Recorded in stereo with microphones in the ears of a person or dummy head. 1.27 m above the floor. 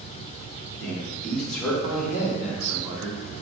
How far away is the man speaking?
About 3.5 m.